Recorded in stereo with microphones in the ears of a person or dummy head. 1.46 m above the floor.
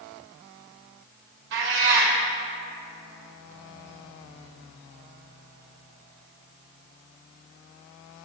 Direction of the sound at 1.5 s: 65° right (ahead or behind).